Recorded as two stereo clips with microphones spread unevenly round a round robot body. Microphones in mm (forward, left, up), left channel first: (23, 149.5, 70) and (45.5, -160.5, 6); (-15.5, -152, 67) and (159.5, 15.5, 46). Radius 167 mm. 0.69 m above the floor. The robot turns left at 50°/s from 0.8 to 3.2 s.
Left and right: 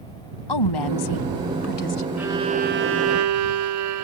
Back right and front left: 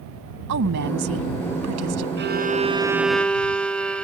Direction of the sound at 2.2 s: Straight ahead.